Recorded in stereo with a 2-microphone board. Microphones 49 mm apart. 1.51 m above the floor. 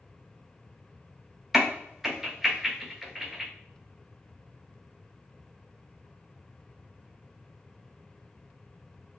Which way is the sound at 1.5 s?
10° right (ahead or behind).